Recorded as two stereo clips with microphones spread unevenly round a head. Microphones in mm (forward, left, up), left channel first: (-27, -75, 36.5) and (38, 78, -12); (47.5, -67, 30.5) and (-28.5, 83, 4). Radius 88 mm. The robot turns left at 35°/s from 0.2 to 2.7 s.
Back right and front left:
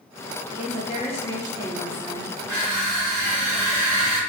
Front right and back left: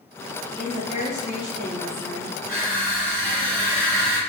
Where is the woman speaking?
170° left, 0.9 m; by 2.3 s 110° left, 0.9 m.